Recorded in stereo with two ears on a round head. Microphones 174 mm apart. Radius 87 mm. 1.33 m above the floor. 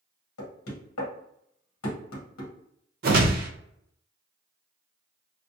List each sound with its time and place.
0.4 s knocking: 90° left, 0.9 m
3.0 s a whoosh: 50° right (ahead or behind), 0.6 m